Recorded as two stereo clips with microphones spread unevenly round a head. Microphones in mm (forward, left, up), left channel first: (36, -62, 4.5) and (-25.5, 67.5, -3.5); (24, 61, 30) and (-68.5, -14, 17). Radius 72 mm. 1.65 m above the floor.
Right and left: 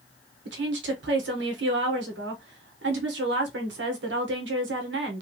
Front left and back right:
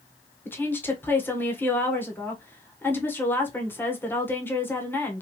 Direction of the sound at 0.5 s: 110° left.